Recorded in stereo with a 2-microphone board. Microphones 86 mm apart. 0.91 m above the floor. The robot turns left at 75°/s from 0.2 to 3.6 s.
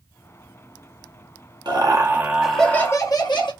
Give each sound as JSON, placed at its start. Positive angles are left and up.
{"t": 1.6, "sound": "laughter", "azimuth_deg": -120, "distance_m": 1.1}